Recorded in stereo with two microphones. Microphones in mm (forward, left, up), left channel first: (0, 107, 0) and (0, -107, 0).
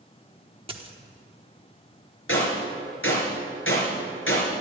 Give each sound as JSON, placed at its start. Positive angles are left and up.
{"t": 0.7, "sound": "a dropped coin", "side_deg": -25, "distance_m": 1.1}
{"t": 2.3, "sound": "a gunshot", "side_deg": 65, "distance_m": 4.5}